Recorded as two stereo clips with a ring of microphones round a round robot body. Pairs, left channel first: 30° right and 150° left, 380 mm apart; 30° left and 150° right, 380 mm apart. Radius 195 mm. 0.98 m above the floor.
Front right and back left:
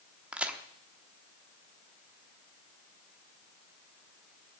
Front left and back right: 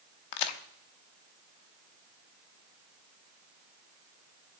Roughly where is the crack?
Ahead left.